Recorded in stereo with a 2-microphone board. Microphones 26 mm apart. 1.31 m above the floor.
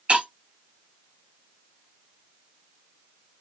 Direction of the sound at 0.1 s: 50° right (ahead or behind).